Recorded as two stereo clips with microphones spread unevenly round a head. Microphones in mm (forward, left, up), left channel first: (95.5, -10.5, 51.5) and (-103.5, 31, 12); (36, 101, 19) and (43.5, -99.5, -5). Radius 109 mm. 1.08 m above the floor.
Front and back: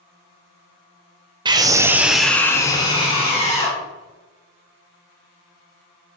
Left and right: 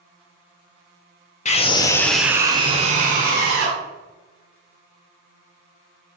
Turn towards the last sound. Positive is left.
turn(degrees=-75)